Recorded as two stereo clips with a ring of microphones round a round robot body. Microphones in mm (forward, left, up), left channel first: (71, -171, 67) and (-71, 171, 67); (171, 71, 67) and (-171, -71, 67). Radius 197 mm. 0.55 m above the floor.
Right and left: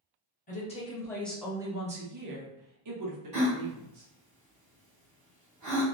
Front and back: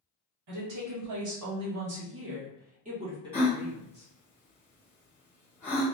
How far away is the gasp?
About 1.5 m.